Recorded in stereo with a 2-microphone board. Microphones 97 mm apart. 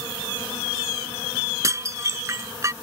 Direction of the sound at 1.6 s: 35° right (ahead or behind).